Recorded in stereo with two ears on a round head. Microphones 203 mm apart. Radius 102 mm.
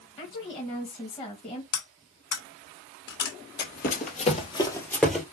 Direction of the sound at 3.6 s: 45° left (ahead or behind).